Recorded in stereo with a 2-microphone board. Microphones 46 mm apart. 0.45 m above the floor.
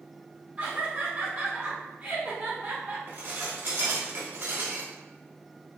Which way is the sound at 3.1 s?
50° right (ahead or behind).